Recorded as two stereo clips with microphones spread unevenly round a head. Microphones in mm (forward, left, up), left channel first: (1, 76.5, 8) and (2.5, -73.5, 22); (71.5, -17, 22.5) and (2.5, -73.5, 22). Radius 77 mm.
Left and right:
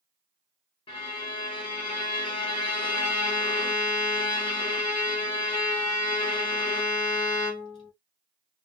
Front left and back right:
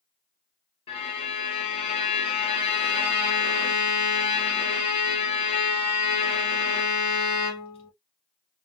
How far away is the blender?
No blender in this recording.